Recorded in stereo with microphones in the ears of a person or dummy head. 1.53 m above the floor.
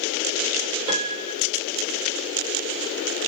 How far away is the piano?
About 1.1 m.